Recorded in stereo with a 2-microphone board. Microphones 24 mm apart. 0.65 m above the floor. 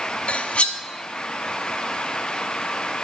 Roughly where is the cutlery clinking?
Left.